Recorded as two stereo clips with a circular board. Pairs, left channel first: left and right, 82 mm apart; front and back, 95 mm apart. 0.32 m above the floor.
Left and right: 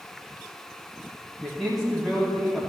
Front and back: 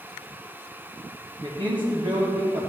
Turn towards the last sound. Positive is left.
turn(degrees=175)